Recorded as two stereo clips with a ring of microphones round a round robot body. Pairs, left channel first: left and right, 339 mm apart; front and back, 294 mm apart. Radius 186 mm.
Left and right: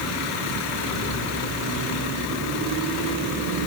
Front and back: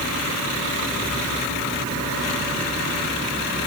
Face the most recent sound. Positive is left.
No sound to turn to.